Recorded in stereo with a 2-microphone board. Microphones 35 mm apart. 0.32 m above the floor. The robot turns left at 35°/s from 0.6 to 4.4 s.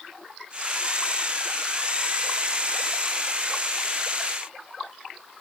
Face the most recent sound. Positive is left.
No sound to turn to.